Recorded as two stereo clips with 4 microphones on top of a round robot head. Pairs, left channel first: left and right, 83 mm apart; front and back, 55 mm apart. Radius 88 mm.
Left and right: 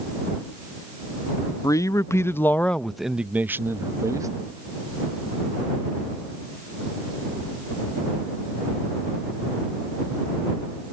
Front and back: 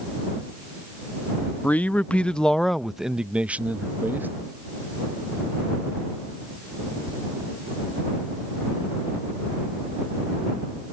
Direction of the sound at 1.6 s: 55° left.